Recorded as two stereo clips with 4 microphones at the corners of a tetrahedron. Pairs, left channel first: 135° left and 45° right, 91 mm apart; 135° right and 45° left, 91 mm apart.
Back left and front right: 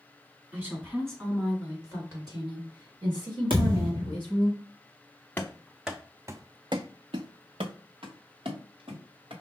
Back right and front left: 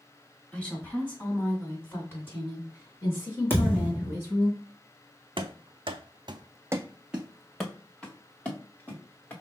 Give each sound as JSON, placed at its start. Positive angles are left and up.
{"t": 0.5, "sound": "a woman speaking", "azimuth_deg": -80, "distance_m": 1.7}
{"t": 3.5, "sound": "a thud", "azimuth_deg": -70, "distance_m": 1.7}
{"t": 5.4, "sound": "running footsteps", "azimuth_deg": 60, "distance_m": 0.8}